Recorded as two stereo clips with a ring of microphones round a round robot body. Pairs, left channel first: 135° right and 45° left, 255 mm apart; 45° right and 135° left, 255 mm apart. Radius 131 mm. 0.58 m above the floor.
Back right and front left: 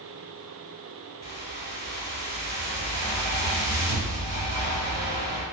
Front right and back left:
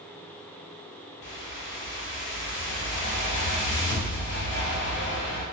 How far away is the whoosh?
About 1.0 m.